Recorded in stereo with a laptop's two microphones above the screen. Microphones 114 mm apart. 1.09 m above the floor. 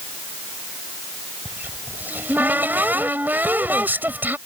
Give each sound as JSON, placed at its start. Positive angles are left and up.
{"t": 1.4, "sound": "a cupboard door", "side_deg": -15}